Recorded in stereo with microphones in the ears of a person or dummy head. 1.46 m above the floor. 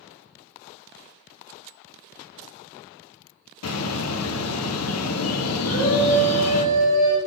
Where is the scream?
80° right, 2 m.